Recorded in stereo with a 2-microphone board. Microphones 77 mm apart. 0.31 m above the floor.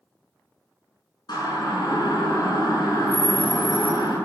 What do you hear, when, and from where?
1.3 s a siren: 70° left (ahead or behind), 5.5 m